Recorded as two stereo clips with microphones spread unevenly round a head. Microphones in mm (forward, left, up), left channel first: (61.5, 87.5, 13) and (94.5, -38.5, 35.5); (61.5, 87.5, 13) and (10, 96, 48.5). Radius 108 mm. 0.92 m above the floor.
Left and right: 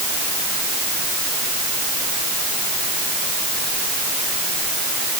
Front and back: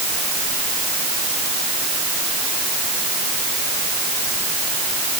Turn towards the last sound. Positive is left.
No sound to turn to.